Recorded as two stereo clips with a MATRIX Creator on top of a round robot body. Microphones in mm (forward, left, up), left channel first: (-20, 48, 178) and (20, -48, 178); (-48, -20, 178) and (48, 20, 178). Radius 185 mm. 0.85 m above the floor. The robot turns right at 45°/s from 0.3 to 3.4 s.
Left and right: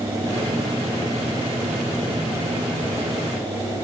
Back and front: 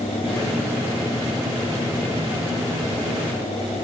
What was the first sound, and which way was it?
Only background noise.